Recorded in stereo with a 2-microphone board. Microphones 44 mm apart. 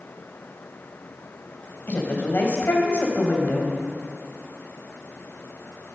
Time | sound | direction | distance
1.9 | a woman speaking | 55° left (ahead or behind) | 3.5 m